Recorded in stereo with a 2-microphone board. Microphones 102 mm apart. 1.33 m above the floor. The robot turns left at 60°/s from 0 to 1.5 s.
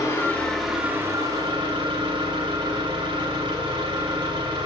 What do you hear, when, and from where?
0.0 s an engine running: 35° left, 2.5 m; by 4.7 s 55° right, 2.5 m